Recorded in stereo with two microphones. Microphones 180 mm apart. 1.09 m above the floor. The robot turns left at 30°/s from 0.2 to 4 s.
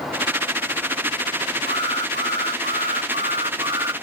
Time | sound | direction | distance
1.7 | an alarm | 90° right | ?